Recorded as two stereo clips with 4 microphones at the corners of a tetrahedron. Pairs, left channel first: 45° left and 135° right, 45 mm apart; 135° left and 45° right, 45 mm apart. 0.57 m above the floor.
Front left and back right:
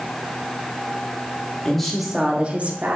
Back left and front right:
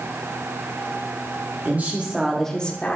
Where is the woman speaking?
30° right, 1.3 m; by 3.0 s 175° right, 1.5 m.